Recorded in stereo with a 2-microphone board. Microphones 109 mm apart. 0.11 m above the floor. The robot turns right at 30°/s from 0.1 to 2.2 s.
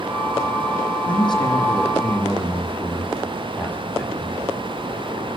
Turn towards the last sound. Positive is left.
turn(degrees=160)